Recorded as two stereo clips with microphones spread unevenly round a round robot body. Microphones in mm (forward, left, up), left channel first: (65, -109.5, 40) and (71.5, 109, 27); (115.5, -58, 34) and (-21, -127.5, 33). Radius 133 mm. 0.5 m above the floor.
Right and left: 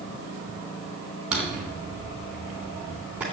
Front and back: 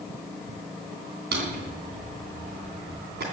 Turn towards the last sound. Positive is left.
turn(degrees=175)